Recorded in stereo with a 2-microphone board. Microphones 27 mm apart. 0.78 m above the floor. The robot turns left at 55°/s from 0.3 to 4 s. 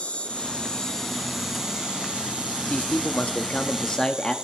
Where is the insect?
60° left, 1.4 m; by 4.5 s 145° right, 1.4 m.